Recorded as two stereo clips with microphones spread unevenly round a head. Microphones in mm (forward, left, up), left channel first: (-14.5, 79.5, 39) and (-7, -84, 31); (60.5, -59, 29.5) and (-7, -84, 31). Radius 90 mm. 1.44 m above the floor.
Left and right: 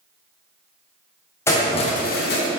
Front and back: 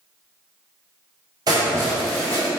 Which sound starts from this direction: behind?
Keys jangling, at 1.5 s.